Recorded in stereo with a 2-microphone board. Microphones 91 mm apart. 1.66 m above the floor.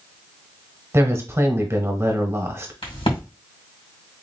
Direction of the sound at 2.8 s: 80° left.